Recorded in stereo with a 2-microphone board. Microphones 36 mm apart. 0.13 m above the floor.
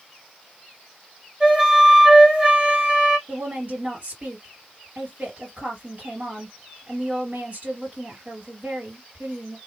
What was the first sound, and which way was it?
A flute, 25° right (ahead or behind).